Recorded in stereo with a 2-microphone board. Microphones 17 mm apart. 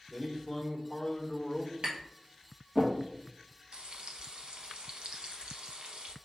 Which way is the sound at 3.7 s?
65° right (ahead or behind).